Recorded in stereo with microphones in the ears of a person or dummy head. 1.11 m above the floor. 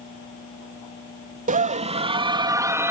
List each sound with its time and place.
1.5 s a scream: 40° right (ahead or behind); by 2.9 s 10° right (ahead or behind)